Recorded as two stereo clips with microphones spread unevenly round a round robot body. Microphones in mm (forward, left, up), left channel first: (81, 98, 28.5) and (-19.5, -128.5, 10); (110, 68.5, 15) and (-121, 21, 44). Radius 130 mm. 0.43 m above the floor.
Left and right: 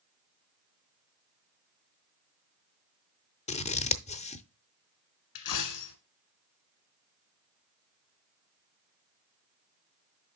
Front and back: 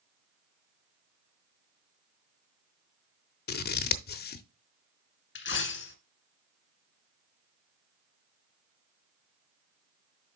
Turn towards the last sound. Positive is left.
turn(degrees=55)